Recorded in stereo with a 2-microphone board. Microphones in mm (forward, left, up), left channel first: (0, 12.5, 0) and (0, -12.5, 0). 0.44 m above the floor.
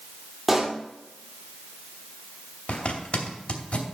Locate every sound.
0.5 s a pop: 10° right (ahead or behind), 2 m
2.7 s a zipper: 60° left (ahead or behind), 2.5 m